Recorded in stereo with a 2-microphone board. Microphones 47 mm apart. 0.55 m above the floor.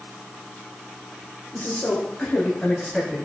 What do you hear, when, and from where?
1.5 s a man speaking: 40° left (ahead or behind), 1.5 m; by 3.2 s 5° left (ahead or behind), 3.5 m